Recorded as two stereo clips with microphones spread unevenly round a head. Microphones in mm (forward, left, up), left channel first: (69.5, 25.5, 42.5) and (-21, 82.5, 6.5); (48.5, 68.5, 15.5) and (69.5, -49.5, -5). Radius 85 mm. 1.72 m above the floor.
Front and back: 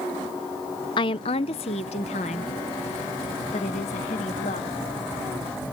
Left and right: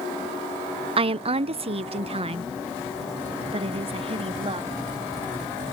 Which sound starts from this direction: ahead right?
A woman speaking, at 1.0 s.